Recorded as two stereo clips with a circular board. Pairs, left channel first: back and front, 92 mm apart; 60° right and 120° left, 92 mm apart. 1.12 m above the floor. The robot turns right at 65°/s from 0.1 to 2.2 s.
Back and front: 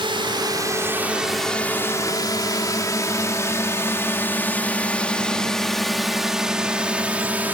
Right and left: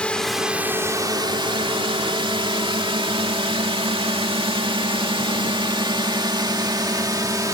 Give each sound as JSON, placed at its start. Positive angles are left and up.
{"t": 0.0, "sound": "a drone", "azimuth_deg": 20}